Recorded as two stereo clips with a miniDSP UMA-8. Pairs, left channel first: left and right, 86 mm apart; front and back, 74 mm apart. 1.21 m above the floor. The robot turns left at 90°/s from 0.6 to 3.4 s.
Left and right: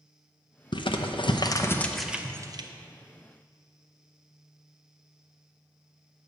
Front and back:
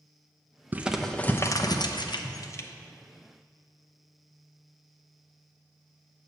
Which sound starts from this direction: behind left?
Crumpling, at 0.7 s.